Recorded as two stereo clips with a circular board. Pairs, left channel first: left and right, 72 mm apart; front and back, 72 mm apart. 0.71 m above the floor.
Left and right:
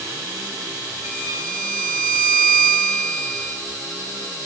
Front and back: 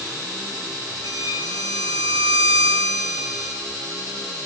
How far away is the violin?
About 5.5 m.